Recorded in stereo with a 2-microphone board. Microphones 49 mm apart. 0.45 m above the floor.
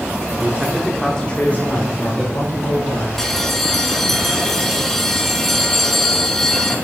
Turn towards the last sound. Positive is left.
turn(degrees=10)  # may be behind; listen again after turning